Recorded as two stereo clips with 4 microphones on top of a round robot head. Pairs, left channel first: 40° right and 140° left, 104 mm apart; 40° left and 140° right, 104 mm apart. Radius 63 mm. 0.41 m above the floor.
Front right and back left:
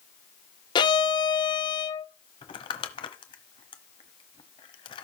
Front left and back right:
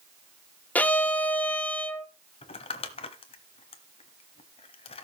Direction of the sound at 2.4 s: 5° left.